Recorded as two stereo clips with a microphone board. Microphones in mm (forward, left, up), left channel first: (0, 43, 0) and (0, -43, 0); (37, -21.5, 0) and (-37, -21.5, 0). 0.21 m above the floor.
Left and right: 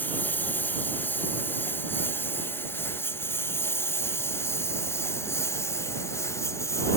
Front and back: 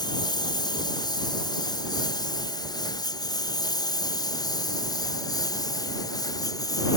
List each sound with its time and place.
0.0 s a lawn mower: 20° left; by 7.0 s 35° left